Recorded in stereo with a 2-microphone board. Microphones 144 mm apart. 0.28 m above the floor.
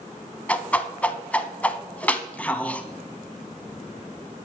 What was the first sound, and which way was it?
A whoosh, 10° left (ahead or behind).